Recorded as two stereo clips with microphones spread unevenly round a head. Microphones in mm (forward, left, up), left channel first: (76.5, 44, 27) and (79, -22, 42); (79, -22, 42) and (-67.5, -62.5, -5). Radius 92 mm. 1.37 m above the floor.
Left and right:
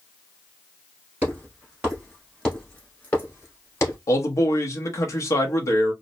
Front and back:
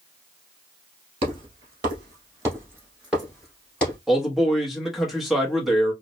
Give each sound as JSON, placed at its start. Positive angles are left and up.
{"t": 1.2, "sound": "footsteps", "azimuth_deg": -110, "distance_m": 1.5}
{"t": 4.1, "sound": "a man speaking", "azimuth_deg": 120, "distance_m": 0.8}